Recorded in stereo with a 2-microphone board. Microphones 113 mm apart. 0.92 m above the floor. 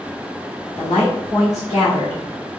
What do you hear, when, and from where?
0.8 s a woman speaking: 85° left, 1.8 m